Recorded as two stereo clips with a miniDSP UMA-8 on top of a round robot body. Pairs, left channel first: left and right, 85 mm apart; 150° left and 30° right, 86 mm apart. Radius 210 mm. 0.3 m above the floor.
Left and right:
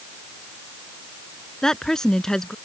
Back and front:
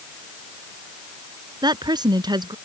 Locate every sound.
1.6 s a woman speaking: 5° left